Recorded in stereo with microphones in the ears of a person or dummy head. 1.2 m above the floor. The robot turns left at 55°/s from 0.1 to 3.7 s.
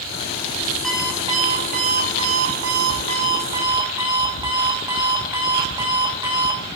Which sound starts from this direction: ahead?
An alarm clock, at 0.8 s.